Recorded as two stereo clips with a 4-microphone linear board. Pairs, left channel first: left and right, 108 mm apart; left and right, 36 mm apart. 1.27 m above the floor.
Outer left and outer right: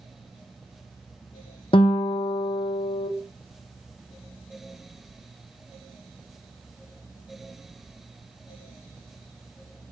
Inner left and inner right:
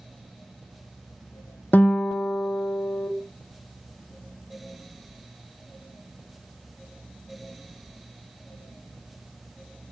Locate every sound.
1.7 s a guitar: 55° left (ahead or behind), 0.8 m